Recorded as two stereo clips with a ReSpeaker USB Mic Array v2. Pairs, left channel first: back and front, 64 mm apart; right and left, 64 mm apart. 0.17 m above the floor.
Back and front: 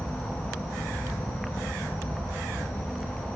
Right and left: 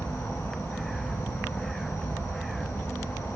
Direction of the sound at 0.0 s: 145° right.